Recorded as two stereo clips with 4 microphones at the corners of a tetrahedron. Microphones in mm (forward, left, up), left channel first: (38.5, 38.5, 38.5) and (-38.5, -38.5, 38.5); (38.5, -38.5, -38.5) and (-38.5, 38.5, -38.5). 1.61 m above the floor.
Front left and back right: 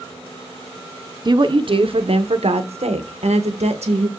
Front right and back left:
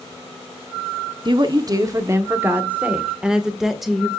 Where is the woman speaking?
Straight behind, 1.3 m; by 4.1 s 135° right, 2.5 m.